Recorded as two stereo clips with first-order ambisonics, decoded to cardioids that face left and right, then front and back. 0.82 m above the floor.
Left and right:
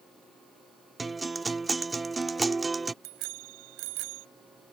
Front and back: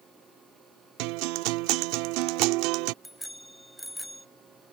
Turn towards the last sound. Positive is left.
turn(degrees=-85)